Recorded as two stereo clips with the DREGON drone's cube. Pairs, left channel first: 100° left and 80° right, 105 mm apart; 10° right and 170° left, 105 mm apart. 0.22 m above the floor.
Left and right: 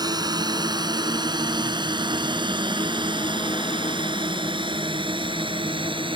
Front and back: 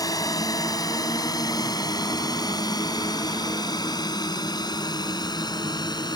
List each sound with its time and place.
0.0 s a drone: 50° right; by 6.2 s 55° right